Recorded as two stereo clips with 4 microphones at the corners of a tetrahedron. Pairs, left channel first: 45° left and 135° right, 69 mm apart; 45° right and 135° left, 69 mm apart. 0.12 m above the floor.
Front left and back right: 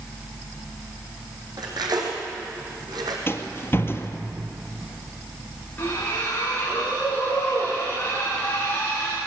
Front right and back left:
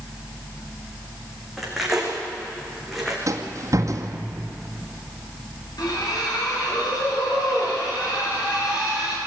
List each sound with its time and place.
1.6 s cutlery clinking: 140° right, 4 m
3.3 s a rattle: 100° left, 1.8 m
5.8 s a splash: 20° right, 8 m